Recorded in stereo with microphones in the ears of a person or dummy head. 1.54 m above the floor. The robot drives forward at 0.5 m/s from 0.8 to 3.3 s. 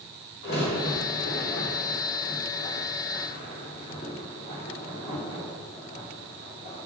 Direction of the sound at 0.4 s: 80° left.